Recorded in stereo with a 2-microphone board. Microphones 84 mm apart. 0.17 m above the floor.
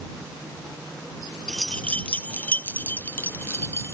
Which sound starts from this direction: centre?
Keys jangling, at 1.5 s.